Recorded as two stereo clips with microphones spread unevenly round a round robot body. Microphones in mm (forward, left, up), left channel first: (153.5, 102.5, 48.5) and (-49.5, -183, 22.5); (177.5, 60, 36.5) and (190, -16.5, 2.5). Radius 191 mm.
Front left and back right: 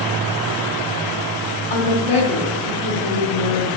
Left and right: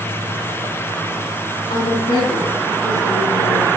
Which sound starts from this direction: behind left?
A woman speaking, at 1.7 s.